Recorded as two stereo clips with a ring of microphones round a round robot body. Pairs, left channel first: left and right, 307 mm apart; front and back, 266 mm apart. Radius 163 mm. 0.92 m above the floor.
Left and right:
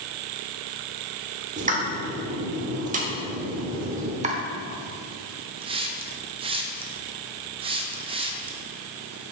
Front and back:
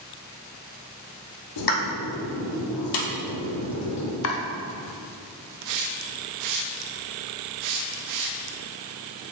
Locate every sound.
1.6 s a pop: 25° right, 1.0 m
4.2 s chopping: 25° right, 0.7 m
5.6 s a hiss: 165° right, 0.6 m